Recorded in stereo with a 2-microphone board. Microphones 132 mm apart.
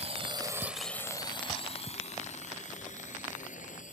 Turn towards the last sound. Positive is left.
turn(degrees=70)  # may be behind; listen again after turning